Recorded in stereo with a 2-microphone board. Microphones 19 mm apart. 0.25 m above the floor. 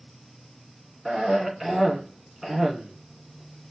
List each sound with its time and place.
1.1 s a cough: 20° right (ahead or behind), 2.5 m